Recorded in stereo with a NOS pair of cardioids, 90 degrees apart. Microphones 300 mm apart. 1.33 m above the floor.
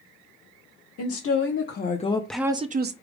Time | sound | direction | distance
1.0 | a woman speaking | 55° left | 1.3 m